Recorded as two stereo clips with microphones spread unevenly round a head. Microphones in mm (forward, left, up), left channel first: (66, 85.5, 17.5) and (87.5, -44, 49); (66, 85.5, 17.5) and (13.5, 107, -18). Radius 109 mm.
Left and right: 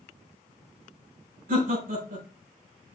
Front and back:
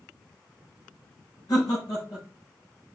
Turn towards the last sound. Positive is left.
turn(degrees=-75)